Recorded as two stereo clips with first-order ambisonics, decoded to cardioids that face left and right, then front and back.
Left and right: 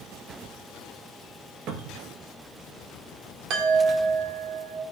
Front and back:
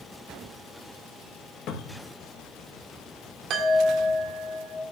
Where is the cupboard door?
45° right, 1.8 m.